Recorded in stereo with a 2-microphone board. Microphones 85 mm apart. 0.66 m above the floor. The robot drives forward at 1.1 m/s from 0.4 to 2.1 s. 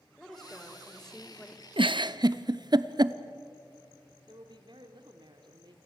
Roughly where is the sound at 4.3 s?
Right.